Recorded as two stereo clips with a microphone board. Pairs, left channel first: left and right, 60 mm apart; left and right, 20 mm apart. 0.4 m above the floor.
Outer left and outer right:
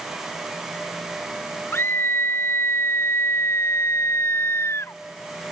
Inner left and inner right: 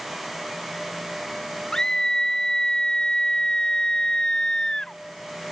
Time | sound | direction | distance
1.7 | a scream | 40° left (ahead or behind) | ?